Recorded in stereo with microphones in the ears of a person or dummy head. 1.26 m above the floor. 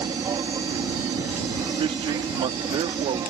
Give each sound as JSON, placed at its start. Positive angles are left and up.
{"t": 0.0, "sound": "an aircraft", "side_deg": -15}
{"t": 1.7, "sound": "a man speaking", "side_deg": -25}